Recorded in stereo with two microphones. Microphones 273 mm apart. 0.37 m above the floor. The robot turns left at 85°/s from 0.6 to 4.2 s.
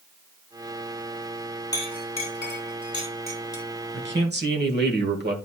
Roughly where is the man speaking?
Right.